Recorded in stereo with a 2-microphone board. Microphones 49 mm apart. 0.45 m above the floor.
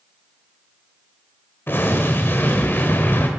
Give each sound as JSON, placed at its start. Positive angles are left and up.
{"t": 1.7, "sound": "an explosion", "side_deg": 45, "distance_m": 1.9}